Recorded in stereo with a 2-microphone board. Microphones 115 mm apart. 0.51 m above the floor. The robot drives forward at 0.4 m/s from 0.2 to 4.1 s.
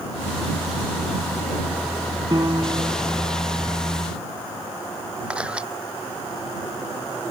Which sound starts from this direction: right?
A piano, at 2.3 s.